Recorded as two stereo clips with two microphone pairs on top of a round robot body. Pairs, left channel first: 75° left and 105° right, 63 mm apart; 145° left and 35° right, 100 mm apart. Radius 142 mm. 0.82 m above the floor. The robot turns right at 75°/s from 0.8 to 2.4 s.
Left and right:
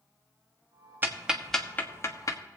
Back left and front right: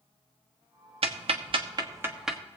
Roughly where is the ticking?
Ahead right.